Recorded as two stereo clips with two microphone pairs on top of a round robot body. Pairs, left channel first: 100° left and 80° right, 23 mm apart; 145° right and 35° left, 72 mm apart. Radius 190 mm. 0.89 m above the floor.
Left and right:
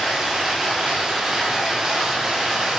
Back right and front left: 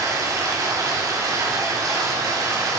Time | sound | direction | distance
0.0 | running water | 10° right | 1.7 m